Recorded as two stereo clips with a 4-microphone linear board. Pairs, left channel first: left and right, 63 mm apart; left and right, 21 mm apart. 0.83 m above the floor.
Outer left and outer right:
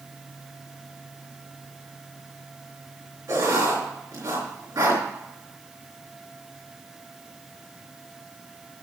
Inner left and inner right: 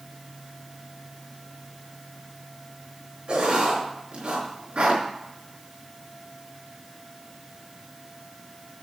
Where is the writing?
70° right (ahead or behind), 4.5 m.